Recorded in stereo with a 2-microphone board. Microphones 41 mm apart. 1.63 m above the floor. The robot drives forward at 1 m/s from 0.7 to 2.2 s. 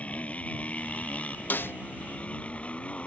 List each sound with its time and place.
0.0 s a motorcycle: 35° left (ahead or behind); by 3.1 s 30° left (ahead or behind)
1.5 s a snare drum: 50° left (ahead or behind); by 1.8 s 65° left (ahead or behind)